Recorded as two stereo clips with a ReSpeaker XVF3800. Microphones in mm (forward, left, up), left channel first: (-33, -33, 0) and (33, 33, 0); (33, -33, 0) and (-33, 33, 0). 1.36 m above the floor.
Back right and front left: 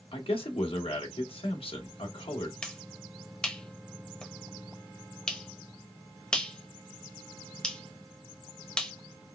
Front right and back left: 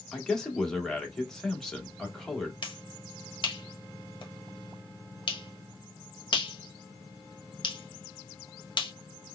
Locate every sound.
0.1 s a man speaking: 130° right, 1.2 m
2.6 s a finger snap: 55° right, 0.9 m